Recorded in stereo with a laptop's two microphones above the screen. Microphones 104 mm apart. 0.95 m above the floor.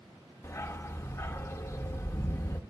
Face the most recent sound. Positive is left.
turn(degrees=25)  # may be behind; listen again after turning